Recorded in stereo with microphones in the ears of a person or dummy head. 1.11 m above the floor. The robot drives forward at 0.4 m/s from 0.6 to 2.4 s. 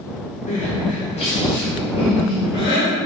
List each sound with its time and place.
0.5 s crying: 35° left (ahead or behind), 1.4 m; by 2.9 s 25° left (ahead or behind), 2.0 m